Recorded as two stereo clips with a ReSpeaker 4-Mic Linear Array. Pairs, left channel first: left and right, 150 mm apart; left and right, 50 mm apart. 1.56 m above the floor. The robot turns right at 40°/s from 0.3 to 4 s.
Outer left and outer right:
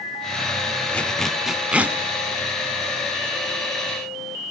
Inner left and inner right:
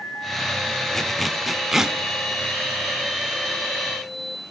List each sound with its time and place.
0.9 s a zipper: 10° left (ahead or behind), 1.3 m; by 2.0 s 10° right (ahead or behind), 1.3 m